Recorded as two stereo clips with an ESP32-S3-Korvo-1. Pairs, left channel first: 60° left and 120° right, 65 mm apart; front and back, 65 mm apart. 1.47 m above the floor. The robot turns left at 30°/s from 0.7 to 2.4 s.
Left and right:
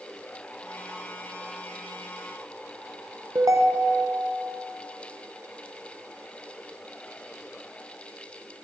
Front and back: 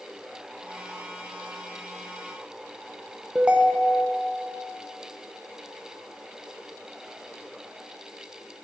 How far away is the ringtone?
About 0.7 m.